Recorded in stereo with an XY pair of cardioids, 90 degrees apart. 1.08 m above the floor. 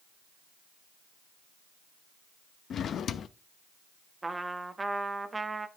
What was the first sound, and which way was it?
A drawer, 65° left.